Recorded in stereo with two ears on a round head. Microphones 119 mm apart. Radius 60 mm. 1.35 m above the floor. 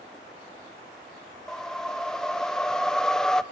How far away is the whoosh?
About 0.5 m.